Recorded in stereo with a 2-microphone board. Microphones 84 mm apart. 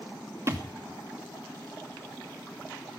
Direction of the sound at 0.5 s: 35° right (ahead or behind).